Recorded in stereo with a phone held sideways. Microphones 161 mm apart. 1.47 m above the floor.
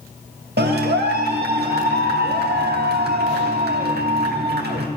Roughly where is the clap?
Right.